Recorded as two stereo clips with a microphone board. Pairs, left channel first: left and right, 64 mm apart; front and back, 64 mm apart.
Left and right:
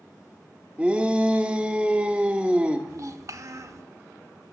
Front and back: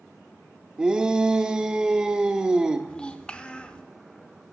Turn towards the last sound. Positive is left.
turn(degrees=-70)